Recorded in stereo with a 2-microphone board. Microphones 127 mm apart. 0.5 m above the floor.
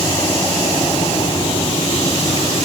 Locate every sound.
Only background noise.